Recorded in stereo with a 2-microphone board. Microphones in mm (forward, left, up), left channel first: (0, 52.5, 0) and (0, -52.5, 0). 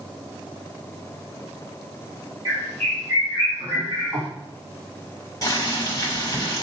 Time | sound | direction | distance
2.5 | a bird | 35° right (ahead or behind) | 2 m
5.4 | boiling | 35° left (ahead or behind) | 1.6 m